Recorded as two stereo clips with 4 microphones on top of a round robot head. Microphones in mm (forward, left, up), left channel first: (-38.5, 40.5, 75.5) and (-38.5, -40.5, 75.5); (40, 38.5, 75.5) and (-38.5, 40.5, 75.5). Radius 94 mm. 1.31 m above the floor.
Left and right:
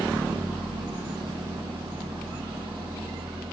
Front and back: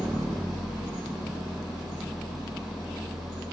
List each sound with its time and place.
0.0 s an engine running: 95° right, 8 m